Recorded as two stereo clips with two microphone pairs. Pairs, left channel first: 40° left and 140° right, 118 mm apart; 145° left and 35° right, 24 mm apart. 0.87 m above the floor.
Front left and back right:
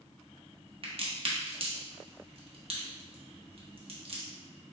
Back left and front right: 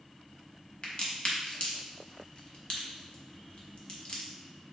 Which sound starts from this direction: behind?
A crack, at 0.8 s.